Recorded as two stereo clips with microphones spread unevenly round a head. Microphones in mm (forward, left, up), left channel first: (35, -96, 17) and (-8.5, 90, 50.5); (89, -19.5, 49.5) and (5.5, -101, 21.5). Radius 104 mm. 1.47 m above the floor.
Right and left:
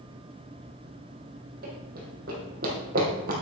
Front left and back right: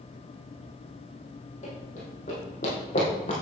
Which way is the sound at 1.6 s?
70° left.